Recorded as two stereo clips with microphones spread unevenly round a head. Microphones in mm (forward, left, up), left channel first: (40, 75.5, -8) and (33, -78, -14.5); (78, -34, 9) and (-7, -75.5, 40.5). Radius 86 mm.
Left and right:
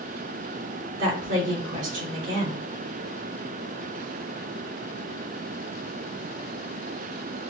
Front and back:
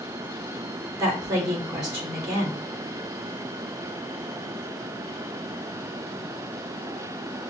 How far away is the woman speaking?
About 3 m.